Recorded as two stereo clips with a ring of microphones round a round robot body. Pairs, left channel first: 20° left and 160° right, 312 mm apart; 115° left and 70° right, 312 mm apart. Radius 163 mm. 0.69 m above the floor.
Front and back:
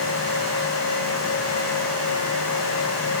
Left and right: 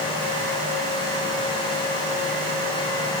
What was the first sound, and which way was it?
Only background noise.